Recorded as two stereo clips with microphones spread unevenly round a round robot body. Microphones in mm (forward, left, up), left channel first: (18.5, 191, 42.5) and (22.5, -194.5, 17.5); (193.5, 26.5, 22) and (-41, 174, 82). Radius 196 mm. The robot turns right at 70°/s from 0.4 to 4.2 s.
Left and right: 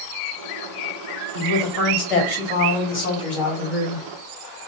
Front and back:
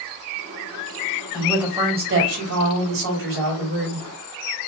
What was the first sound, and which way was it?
A woman speaking, 40° left.